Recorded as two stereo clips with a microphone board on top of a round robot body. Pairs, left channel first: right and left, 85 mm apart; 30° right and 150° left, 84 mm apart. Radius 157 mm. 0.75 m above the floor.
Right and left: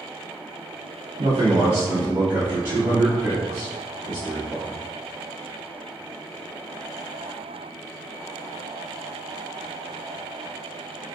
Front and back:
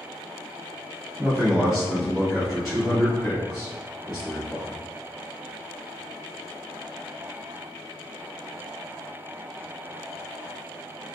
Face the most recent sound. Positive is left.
turn(degrees=60)